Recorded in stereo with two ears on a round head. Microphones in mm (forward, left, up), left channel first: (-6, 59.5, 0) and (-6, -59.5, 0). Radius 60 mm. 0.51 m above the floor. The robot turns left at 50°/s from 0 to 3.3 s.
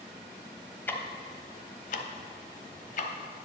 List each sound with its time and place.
0.9 s ticking: 15° left (ahead or behind), 1.0 m; by 3.1 s 55° left (ahead or behind), 1.0 m